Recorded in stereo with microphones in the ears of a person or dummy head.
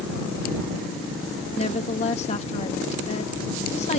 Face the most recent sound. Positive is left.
turn(degrees=35)  # may be behind; listen again after turning